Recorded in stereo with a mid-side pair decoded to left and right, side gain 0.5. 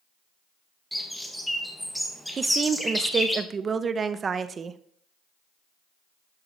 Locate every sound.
0.9 s a bird: 5° left, 1.8 m
2.4 s a woman speaking: 35° right, 0.8 m